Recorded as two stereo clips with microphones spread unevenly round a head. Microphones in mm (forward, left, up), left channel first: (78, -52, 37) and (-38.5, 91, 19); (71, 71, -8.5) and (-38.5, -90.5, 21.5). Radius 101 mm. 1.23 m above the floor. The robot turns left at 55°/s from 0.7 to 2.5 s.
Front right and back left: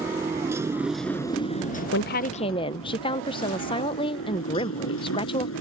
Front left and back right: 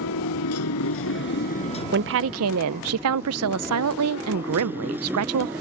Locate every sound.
0.0 s a motorcycle: 55° left; by 5.6 s 45° right
1.9 s a woman speaking: 85° right; by 5.5 s 115° right